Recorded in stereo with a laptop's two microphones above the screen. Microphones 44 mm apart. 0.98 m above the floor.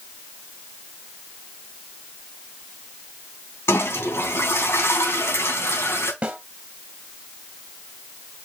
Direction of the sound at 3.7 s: 75° left (ahead or behind).